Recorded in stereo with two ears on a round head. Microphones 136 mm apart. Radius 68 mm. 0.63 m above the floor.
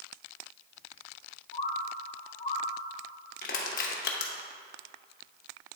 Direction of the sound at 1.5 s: 50° left (ahead or behind).